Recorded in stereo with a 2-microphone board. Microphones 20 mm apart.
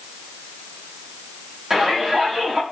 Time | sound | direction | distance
1.7 | a shout | 30° right (ahead or behind) | 8.5 m